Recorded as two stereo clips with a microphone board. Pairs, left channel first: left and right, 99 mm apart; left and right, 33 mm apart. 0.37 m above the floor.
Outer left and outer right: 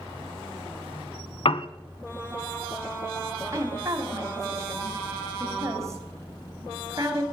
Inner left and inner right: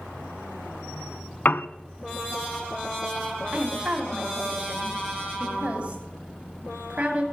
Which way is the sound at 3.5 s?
30° right (ahead or behind).